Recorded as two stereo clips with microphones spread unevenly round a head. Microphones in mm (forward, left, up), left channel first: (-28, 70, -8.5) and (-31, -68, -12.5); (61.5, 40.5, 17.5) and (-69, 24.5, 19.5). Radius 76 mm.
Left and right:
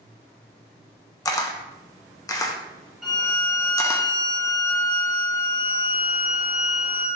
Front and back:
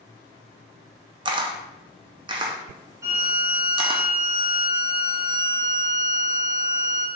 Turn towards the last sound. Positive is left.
turn(degrees=180)